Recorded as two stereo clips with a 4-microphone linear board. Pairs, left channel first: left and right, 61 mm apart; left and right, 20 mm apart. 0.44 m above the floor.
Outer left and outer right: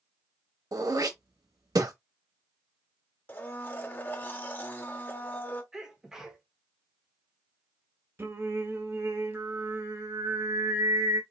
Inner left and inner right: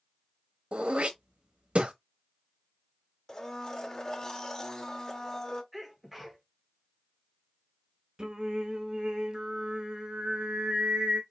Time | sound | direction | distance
0.7 | throat clearing | 80° right | 0.8 m
3.3 | a blender | 35° left (ahead or behind) | 0.8 m
5.7 | a sneeze | 10° right (ahead or behind) | 1.3 m
8.2 | singing | 40° right (ahead or behind) | 1.1 m